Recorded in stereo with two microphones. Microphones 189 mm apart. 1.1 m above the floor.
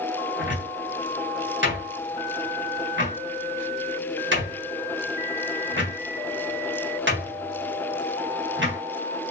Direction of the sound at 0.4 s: 85° right.